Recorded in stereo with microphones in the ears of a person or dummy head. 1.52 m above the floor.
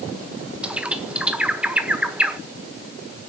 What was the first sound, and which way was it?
A bird, 5° right (ahead or behind).